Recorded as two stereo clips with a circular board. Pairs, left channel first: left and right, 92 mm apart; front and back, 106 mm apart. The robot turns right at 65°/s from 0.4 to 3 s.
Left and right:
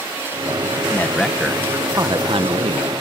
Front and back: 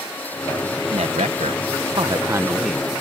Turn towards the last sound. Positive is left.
turn(degrees=-75)